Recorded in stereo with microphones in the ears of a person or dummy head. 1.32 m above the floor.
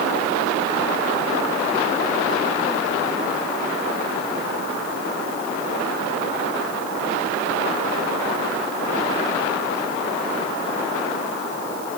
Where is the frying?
I don't hear frying.